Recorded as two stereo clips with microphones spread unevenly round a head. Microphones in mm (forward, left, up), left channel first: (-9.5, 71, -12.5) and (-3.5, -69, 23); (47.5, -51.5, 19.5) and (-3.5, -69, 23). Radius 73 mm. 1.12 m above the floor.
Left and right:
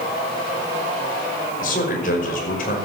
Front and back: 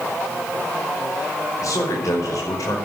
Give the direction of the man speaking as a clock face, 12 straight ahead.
10 o'clock.